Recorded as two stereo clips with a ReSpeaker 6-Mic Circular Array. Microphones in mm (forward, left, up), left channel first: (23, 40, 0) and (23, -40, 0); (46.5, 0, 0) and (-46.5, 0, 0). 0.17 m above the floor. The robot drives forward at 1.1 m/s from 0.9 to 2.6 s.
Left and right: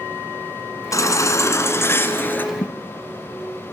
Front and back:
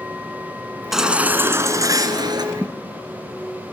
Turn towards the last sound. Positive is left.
turn(degrees=85)